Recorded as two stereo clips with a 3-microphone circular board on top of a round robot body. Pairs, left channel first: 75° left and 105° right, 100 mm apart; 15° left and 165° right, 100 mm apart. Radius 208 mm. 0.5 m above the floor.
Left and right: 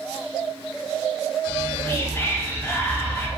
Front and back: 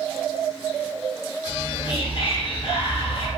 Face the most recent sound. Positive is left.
turn(degrees=10)